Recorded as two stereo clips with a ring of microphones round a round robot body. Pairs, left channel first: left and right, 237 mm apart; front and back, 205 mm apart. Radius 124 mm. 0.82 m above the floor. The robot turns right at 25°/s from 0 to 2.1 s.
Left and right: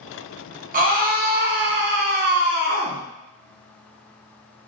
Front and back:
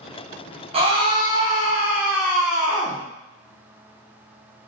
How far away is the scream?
About 0.8 m.